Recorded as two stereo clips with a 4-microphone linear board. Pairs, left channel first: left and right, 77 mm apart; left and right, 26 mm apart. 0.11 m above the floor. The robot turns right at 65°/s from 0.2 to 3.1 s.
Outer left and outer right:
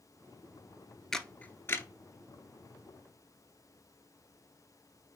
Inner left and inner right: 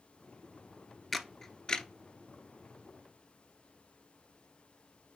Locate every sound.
1.1 s a camera shutter: 5° left (ahead or behind), 0.5 m; by 1.9 s 40° left (ahead or behind), 0.5 m